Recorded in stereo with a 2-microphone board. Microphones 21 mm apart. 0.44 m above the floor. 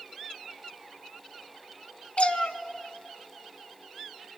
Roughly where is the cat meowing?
Left.